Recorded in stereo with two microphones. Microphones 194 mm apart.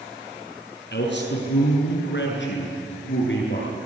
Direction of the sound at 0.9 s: 65° left (ahead or behind).